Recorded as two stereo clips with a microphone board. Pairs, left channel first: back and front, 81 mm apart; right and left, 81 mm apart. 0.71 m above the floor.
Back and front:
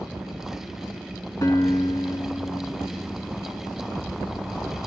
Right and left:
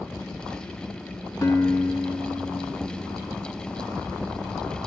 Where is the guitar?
145° right, 3.5 m.